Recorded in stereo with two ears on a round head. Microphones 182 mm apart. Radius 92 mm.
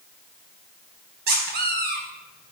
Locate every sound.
1.3 s a squeak: 50° right (ahead or behind), 4 m